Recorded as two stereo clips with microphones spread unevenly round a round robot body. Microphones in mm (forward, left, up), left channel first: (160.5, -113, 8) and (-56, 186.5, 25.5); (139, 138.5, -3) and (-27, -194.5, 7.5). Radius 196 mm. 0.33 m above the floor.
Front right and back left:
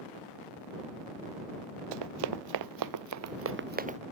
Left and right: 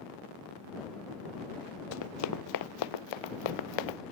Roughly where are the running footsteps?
Behind left.